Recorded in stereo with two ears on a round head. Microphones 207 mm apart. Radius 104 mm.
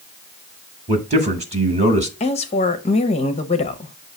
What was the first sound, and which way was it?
A man speaking, 30° right (ahead or behind).